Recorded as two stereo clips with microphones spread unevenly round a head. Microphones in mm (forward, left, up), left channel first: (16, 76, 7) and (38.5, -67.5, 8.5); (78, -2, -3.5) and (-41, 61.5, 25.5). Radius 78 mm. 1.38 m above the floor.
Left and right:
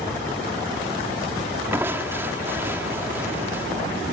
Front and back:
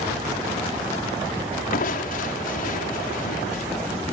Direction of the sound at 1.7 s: 5° right.